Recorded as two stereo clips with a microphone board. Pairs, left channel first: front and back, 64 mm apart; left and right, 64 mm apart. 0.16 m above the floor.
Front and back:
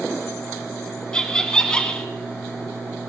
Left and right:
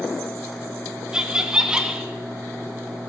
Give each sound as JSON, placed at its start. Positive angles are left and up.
{"t": 1.1, "sound": "laughter", "azimuth_deg": -50, "distance_m": 1.2}